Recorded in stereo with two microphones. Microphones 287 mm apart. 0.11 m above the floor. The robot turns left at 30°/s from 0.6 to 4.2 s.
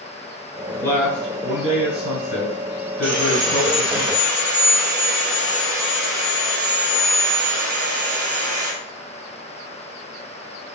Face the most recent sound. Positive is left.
turn(degrees=-140)